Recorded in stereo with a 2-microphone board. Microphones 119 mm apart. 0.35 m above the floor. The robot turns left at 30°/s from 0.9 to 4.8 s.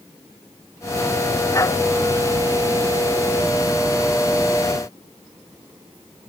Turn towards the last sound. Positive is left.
No sound to turn to.